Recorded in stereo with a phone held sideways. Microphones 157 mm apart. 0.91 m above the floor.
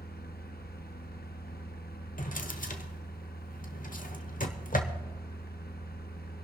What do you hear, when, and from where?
0.0 s a fan: 80° left, 0.9 m
2.2 s a drawer: 60° left (ahead or behind), 1.0 m